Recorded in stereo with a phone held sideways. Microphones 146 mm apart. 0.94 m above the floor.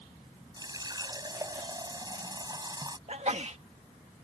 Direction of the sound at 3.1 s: 50° right (ahead or behind).